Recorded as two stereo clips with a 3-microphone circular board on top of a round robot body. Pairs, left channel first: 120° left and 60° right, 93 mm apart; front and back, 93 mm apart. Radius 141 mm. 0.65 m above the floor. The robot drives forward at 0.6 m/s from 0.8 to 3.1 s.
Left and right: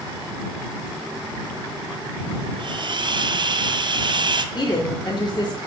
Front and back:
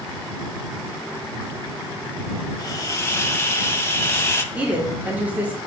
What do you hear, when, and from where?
2.6 s a hiss: 40° right, 1.1 m; by 4.5 s 60° right, 0.9 m
4.5 s a woman speaking: 110° left, 1.5 m